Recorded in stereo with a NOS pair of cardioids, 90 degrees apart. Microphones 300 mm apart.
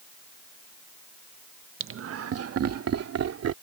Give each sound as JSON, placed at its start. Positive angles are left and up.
{"t": 1.8, "sound": "laughter", "azimuth_deg": -40}